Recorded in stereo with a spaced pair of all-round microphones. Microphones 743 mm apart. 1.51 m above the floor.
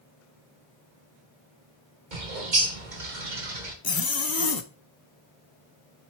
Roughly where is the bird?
Right.